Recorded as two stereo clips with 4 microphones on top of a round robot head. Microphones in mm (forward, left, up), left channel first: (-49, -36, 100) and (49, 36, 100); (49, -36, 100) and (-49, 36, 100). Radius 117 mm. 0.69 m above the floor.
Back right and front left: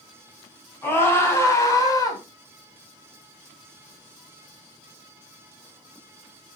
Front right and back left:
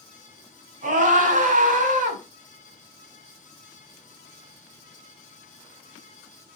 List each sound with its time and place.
0.8 s a scream: 145° left, 5.5 m; by 2.2 s 160° left, 4 m